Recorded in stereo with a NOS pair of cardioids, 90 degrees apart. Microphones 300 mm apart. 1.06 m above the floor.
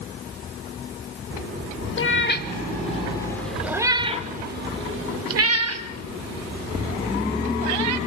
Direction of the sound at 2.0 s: 40° left.